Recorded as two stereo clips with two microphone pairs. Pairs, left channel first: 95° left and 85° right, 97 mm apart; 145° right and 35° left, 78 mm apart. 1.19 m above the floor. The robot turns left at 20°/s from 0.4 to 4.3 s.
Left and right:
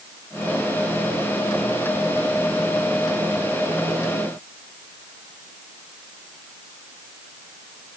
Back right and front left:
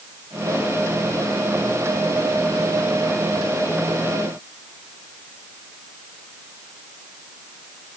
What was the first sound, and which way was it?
Only background noise.